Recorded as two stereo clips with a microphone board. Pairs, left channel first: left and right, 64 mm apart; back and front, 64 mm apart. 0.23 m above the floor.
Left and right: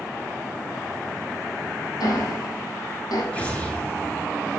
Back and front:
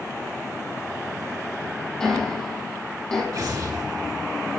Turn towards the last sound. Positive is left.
turn(degrees=20)